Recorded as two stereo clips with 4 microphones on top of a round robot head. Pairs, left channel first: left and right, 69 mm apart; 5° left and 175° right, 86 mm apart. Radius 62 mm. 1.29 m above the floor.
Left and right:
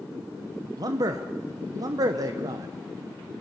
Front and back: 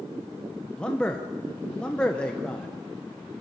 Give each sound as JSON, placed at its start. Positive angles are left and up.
{"t": 0.8, "sound": "a man speaking", "azimuth_deg": -75, "distance_m": 1.1}